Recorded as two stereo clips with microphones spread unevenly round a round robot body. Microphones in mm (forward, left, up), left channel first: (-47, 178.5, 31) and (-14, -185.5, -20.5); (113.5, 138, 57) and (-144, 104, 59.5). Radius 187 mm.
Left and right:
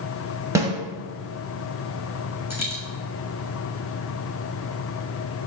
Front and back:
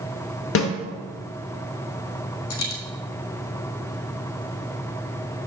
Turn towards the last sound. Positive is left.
turn(degrees=0)